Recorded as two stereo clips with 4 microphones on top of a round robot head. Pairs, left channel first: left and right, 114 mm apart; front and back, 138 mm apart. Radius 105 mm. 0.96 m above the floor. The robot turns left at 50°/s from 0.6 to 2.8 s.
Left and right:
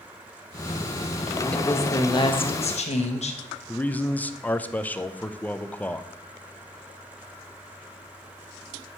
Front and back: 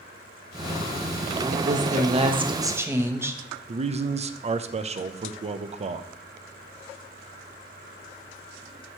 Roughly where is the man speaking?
Behind.